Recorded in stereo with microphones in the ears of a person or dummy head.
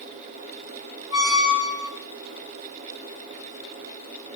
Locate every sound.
1.1 s a squeak: 35° left (ahead or behind), 0.8 m